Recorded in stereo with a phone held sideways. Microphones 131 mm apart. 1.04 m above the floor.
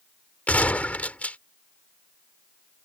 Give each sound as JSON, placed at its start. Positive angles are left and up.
{"t": 0.5, "sound": "a gunshot", "side_deg": 10}